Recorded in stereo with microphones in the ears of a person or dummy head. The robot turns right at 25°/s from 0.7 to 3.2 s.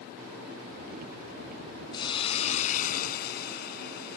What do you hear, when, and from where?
1.9 s a hiss: 25° left; by 4.2 s 60° left